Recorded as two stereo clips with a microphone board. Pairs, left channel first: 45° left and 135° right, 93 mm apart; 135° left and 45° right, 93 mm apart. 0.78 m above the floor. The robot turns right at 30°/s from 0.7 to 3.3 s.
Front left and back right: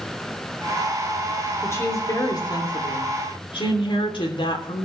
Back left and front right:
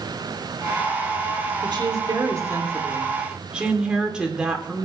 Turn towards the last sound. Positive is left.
turn(degrees=35)